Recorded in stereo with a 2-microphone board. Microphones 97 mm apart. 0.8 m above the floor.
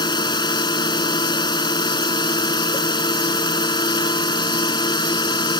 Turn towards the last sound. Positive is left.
turn(degrees=45)  # may be behind; listen again after turning